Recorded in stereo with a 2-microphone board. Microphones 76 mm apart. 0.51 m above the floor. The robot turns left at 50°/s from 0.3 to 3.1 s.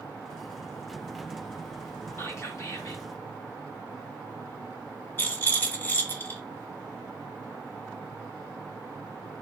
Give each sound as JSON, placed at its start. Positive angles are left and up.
{"t": 2.2, "sound": "whispering", "azimuth_deg": 125, "distance_m": 0.8}
{"t": 5.2, "sound": "a rattle", "side_deg": 25, "distance_m": 0.8}